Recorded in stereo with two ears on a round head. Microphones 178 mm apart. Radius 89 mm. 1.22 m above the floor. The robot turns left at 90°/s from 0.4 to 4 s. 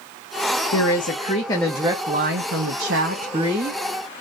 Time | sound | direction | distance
0.7 | a woman speaking | 90° left | 0.9 m